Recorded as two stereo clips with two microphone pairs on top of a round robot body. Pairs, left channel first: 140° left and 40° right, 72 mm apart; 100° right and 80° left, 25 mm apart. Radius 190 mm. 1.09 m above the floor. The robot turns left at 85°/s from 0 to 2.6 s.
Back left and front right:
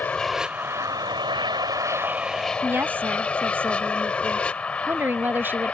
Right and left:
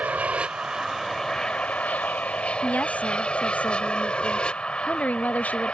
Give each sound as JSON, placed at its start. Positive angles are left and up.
{"t": 0.0, "sound": "an aircraft", "azimuth_deg": 75}
{"t": 2.6, "sound": "a woman speaking", "azimuth_deg": -100}